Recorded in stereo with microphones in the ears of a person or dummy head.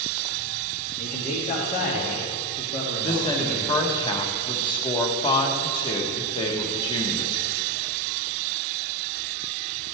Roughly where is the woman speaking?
Left.